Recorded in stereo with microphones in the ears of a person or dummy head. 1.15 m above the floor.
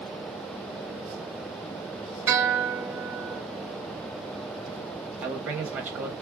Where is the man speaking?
10° right (ahead or behind), 1.4 m.